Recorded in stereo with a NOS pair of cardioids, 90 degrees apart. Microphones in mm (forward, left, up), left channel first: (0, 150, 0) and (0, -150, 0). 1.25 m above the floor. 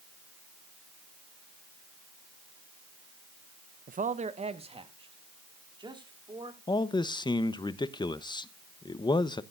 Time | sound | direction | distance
3.9 | a man speaking | 30° right | 0.8 m
6.7 | a man speaking | 15° left | 0.9 m